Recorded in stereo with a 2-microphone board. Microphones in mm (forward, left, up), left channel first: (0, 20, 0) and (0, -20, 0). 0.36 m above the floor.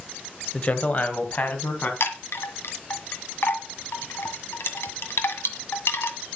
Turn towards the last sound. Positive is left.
turn(degrees=75)  # may be behind; listen again after turning